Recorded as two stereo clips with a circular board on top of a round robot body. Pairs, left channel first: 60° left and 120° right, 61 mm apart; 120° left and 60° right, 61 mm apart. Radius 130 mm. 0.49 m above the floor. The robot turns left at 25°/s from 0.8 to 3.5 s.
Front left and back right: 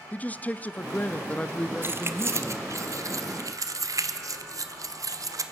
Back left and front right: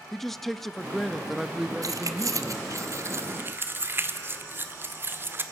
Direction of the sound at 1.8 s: 70° right.